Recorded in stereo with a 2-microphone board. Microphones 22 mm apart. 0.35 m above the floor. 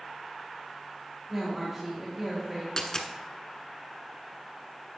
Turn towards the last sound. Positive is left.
turn(degrees=25)  # may be behind; listen again after turning